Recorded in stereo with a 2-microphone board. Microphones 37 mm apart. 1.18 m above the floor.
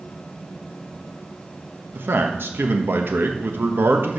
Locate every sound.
1.9 s a man speaking: 75° right (ahead or behind), 1.0 m